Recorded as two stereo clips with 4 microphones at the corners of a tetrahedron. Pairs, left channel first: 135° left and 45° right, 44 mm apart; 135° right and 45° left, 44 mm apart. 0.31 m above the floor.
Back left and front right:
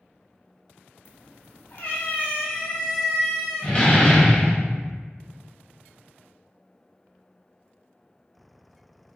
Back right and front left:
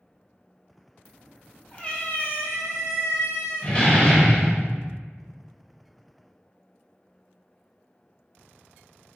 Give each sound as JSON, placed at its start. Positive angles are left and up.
{"t": 1.1, "sound": "a cat meowing", "azimuth_deg": 150, "distance_m": 1.0}
{"t": 3.6, "sound": "a door slam", "azimuth_deg": -175, "distance_m": 0.9}